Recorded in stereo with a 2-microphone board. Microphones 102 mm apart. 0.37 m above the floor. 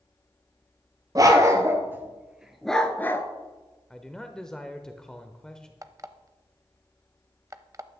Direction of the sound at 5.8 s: 30° right (ahead or behind).